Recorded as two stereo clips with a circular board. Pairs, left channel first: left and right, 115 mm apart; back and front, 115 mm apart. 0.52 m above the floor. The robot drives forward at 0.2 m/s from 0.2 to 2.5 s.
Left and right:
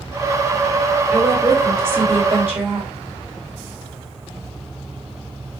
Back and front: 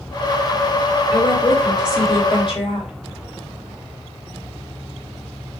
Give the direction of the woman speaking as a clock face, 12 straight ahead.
5 o'clock.